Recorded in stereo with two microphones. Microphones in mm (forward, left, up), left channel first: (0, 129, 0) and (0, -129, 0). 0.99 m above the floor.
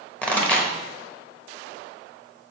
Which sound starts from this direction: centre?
A pop, at 0.2 s.